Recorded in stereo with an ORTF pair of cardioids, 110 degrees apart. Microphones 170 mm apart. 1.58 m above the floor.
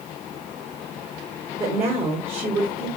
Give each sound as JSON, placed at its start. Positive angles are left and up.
{"t": 1.6, "sound": "a woman speaking", "azimuth_deg": -35, "distance_m": 1.6}